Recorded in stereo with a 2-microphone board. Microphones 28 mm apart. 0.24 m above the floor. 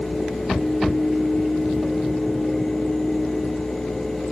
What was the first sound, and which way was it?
Only background noise.